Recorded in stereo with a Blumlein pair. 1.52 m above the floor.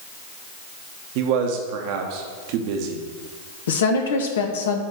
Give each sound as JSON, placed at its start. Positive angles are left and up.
{"t": 1.1, "sound": "a man speaking", "azimuth_deg": -45, "distance_m": 1.2}
{"t": 3.7, "sound": "a woman speaking", "azimuth_deg": 60, "distance_m": 1.4}